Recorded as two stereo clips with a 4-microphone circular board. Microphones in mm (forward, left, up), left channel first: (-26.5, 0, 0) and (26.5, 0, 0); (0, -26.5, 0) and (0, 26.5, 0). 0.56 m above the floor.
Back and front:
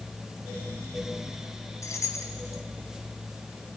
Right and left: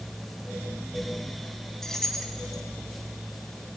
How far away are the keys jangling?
About 2.5 m.